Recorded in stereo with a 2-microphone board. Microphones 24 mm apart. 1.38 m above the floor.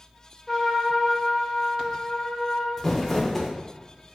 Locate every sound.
0.5 s a trumpet: 10° left (ahead or behind), 1.2 m
2.8 s crumpling: 10° left (ahead or behind), 0.8 m